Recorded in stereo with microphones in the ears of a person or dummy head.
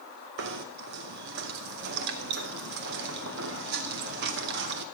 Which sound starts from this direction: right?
Knocking, at 0.4 s.